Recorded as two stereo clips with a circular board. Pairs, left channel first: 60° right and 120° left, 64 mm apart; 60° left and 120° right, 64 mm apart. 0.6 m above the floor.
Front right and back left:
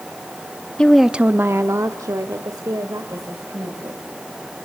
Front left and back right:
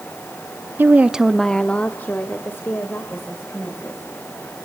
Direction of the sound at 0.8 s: 125° right.